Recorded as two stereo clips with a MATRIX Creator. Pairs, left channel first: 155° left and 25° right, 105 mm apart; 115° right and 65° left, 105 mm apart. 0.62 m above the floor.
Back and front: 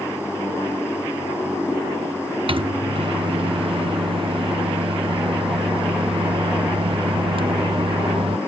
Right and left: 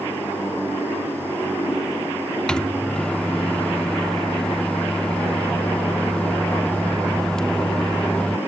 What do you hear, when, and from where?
2.5 s a microwave: 30° right